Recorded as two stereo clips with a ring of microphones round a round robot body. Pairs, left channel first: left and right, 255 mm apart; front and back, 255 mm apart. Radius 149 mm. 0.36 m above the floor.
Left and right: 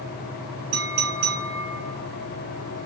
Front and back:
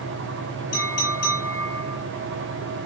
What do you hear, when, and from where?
0.7 s a clink: 80° right, 6 m